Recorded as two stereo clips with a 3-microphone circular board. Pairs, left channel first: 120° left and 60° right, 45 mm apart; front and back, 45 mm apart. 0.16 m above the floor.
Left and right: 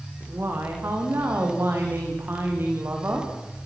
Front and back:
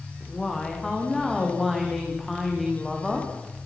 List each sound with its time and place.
0.2 s a woman speaking: 80° right, 9.5 m; by 3.3 s 90° right, 9 m